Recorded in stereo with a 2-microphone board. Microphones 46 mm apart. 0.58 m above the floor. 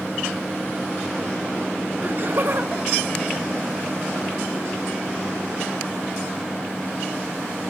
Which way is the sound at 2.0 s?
40° right (ahead or behind).